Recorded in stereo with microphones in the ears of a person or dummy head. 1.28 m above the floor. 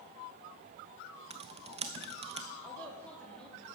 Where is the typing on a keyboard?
30° right (ahead or behind), 0.6 m.